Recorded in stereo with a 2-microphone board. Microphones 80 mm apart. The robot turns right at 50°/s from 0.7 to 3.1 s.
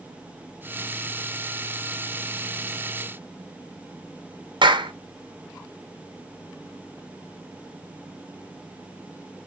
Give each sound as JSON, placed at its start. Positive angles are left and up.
{"t": 4.6, "sound": "a clap", "side_deg": -80, "distance_m": 1.0}